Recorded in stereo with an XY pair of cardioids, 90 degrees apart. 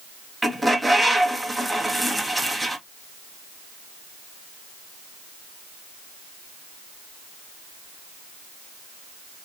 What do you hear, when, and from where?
0.4 s a bird: 5° right, 0.9 m